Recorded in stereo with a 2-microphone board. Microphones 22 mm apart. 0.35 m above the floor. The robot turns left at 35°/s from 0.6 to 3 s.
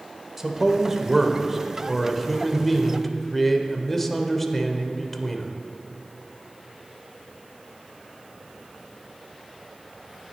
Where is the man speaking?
15° right (ahead or behind), 0.8 m; by 5.5 s 10° left (ahead or behind), 0.8 m.